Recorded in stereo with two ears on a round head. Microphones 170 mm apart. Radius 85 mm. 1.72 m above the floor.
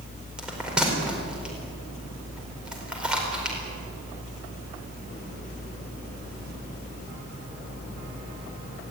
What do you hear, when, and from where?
0.4 s a bell: 5° right (ahead or behind), 4.5 m